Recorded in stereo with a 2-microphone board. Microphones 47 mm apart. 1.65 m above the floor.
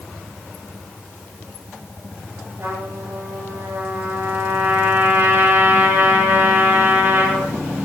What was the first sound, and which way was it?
A trumpet, 65° right (ahead or behind).